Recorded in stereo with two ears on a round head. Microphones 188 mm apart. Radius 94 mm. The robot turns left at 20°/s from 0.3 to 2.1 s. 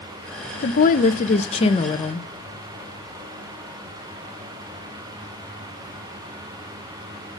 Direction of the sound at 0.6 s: 45° left (ahead or behind).